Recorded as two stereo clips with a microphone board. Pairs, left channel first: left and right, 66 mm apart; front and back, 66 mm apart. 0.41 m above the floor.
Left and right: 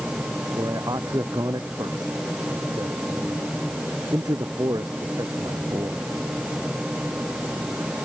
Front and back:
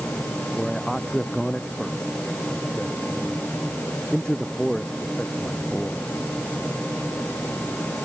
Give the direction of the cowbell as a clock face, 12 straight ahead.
I don't hear a cowbell.